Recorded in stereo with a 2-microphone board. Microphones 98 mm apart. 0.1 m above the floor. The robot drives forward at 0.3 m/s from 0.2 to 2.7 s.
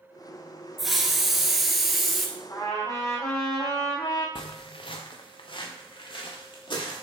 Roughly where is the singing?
I don't hear singing.